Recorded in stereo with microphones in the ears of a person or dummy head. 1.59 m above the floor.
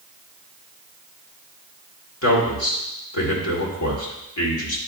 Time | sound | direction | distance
2.2 | a man speaking | 75° left (ahead or behind) | 1.8 m